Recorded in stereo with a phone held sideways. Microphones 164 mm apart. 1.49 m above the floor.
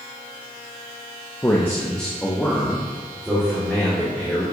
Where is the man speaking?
20° left (ahead or behind), 0.5 m; by 4.4 s 5° right (ahead or behind), 2.5 m.